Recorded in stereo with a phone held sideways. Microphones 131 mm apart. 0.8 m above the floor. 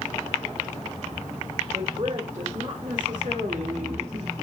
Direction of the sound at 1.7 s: 70° right (ahead or behind).